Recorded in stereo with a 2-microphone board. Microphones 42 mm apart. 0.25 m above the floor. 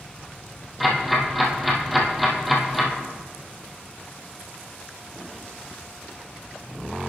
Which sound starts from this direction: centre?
Ticking, at 0.8 s.